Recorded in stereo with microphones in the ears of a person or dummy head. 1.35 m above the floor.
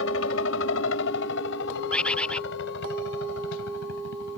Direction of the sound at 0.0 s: 70° left (ahead or behind).